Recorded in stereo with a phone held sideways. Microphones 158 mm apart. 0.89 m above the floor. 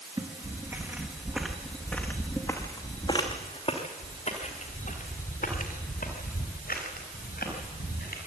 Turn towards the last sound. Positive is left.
turn(degrees=75)  # may be behind; listen again after turning